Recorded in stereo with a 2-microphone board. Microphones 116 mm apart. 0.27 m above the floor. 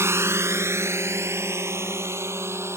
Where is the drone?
20° right (ahead or behind).